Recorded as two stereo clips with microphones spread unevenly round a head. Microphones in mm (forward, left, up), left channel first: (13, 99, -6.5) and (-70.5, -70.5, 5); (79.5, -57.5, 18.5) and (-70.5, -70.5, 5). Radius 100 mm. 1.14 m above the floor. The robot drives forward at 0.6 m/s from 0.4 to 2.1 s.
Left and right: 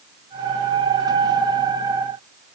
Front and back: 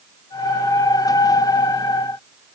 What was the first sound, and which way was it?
Only background noise.